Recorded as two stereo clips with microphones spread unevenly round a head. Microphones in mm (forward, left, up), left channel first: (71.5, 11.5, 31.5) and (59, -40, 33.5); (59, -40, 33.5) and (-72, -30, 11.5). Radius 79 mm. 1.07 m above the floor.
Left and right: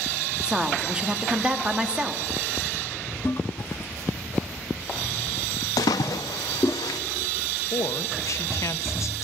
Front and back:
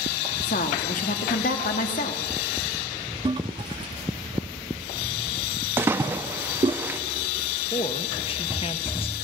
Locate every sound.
0.4 s a woman speaking: 30° right, 1.6 m
3.2 s a toilet flushing: 120° left, 0.5 m
5.8 s a splash: 95° left, 0.7 m
7.7 s a woman speaking: 50° left, 1.0 m